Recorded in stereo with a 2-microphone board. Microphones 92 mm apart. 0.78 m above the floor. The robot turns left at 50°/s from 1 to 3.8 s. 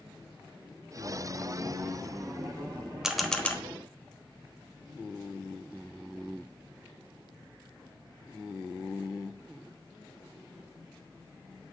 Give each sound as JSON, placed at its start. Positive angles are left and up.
{"t": 3.0, "sound": "a camera shutter", "side_deg": -5, "distance_m": 0.9}